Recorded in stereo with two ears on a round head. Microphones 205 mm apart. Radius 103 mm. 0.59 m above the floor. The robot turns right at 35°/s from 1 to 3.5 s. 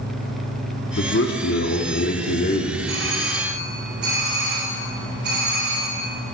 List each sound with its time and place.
1.0 s a man speaking: 75° left, 1.2 m; by 2.8 s 140° left, 1.2 m
2.9 s a doorbell: 60° right (ahead or behind), 3.5 m; by 6.0 s 45° right (ahead or behind), 3.5 m